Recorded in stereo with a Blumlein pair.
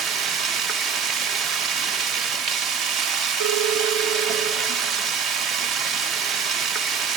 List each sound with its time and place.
0.0 s running water: 30° right, 1.0 m
3.4 s a phone ringing: 50° right, 3 m